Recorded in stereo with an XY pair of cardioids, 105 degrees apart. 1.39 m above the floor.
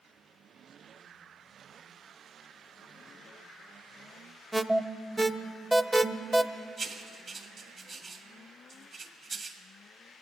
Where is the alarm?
10° right, 0.6 m.